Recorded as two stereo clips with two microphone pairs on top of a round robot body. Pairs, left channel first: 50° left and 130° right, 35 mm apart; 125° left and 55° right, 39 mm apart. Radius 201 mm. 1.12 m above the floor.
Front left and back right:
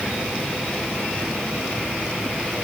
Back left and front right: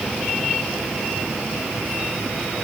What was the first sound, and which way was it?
Only background noise.